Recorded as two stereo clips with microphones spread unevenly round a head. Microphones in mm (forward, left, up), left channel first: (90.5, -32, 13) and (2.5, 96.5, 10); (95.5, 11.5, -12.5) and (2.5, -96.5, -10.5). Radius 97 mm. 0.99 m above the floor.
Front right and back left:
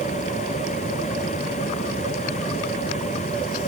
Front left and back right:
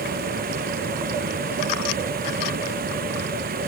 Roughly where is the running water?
Behind right.